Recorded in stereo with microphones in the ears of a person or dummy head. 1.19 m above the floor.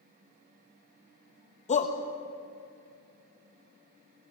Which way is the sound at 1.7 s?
25° left (ahead or behind).